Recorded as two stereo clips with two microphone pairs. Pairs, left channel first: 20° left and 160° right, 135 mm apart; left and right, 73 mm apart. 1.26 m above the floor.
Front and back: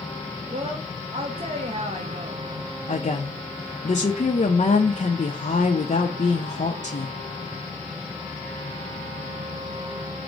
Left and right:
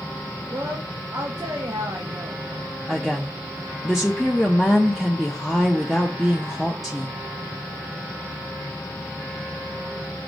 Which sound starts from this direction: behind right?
A woman speaking, at 0.5 s.